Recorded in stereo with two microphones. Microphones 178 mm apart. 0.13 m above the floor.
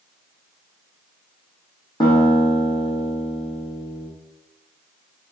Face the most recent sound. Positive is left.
turn(degrees=25)  # may be behind; listen again after turning